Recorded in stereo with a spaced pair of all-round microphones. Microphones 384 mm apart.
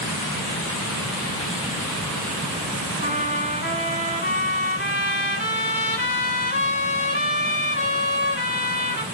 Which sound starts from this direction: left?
A trumpet, at 3.0 s.